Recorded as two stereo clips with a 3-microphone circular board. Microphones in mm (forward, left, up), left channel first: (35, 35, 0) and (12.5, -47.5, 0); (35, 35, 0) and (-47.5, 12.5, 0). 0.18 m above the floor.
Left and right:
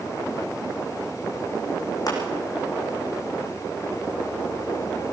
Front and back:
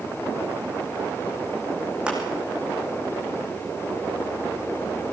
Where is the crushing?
115° left, 6.5 m.